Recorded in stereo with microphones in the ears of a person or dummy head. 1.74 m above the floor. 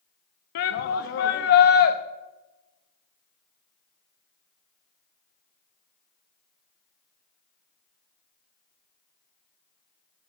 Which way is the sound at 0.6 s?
60° left (ahead or behind).